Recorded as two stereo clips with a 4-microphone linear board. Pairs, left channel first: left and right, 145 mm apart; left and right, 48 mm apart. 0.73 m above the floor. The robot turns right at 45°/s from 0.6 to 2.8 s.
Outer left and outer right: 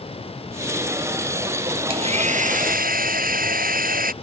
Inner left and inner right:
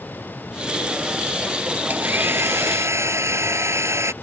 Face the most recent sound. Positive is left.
turn(degrees=-100)